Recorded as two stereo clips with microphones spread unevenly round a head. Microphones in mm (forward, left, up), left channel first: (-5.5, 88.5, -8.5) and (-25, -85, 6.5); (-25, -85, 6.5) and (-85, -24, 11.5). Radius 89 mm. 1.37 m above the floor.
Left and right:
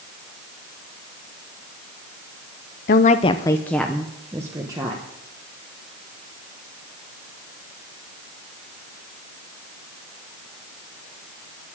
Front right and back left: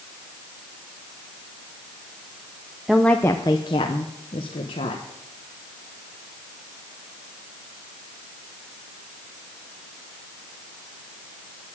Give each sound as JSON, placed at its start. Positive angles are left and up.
{"t": 2.9, "sound": "a woman speaking", "azimuth_deg": 45, "distance_m": 0.6}